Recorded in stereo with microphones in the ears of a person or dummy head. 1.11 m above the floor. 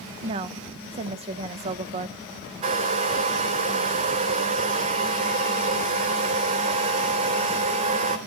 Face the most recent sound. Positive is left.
turn(degrees=-35)  # may be behind; listen again after turning